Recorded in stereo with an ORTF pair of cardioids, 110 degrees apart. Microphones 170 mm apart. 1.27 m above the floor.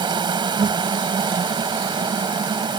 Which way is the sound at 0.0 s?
30° right.